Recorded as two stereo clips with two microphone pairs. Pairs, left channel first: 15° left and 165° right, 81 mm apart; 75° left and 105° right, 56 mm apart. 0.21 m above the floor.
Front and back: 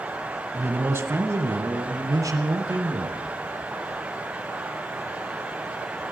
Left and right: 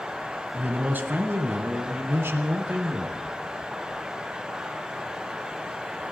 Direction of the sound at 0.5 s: 130° right.